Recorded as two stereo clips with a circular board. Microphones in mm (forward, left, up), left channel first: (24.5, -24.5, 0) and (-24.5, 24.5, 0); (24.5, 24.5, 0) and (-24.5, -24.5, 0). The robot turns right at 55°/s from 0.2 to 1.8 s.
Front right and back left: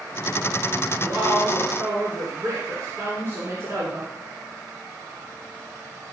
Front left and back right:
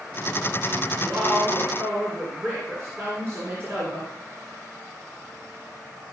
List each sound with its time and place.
1.0 s a woman speaking: 135° left, 2.5 m; by 4.1 s straight behind, 2.5 m